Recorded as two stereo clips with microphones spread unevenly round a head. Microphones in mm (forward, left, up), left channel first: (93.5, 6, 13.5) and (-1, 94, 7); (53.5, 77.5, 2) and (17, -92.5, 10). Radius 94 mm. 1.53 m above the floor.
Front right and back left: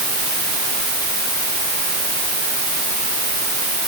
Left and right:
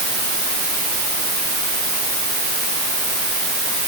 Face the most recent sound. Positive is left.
No sound to turn to.